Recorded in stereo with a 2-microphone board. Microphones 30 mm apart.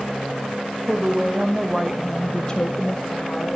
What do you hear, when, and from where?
0.9 s a woman speaking: 30° right (ahead or behind), 1.3 m; by 3.6 s 50° left (ahead or behind), 1.3 m